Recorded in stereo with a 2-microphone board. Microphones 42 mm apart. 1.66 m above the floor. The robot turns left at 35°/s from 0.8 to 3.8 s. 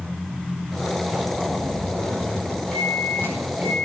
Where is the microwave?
15° right, 5 m; by 3.9 s 50° right, 5 m.